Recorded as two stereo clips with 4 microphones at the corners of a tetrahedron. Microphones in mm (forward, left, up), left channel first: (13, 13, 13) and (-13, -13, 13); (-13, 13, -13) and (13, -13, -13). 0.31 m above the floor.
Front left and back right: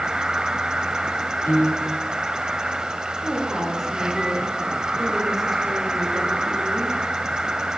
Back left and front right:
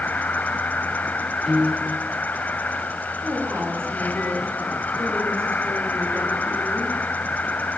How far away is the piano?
About 8.5 m.